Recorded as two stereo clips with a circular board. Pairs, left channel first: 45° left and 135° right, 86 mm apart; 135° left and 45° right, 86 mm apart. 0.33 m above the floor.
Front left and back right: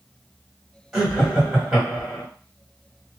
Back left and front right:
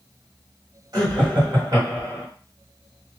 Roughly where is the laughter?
Ahead right.